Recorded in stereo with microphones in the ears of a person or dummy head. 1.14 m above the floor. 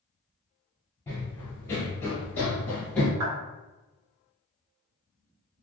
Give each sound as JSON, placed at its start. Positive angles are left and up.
{"t": 1.1, "sound": "running footsteps", "side_deg": 10, "distance_m": 1.2}
{"t": 3.2, "sound": "a clap", "side_deg": -55, "distance_m": 1.1}